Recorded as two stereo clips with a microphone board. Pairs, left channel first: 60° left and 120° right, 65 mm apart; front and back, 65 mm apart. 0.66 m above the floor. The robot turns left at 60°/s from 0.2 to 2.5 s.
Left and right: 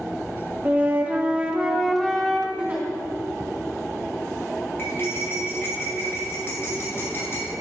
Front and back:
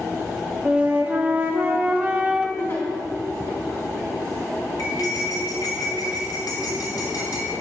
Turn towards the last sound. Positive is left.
turn(degrees=10)